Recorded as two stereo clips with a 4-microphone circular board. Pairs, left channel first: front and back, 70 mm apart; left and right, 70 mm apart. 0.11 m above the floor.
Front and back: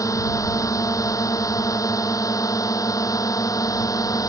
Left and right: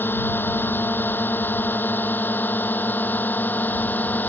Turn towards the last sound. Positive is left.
turn(degrees=25)